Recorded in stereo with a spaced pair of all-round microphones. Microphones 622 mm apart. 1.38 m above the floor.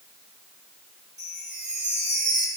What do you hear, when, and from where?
1.2 s a chime: 30° right (ahead or behind), 3 m